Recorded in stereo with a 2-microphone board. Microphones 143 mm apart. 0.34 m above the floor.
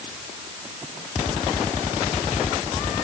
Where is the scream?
No scream in this recording.